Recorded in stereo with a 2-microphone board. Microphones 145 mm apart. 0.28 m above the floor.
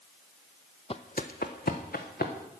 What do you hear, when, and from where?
0.9 s footsteps: 40° left (ahead or behind), 0.6 m; by 2.3 s 85° left, 2.0 m